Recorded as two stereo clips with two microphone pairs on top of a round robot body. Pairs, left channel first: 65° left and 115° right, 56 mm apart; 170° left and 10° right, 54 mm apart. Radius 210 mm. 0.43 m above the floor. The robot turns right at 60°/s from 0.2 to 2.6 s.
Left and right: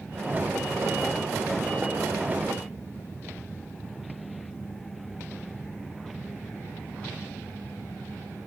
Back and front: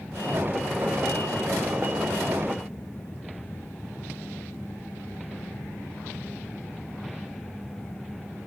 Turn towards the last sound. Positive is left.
No sound to turn to.